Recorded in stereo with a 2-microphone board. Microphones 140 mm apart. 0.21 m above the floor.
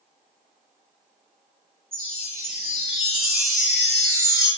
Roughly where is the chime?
Right.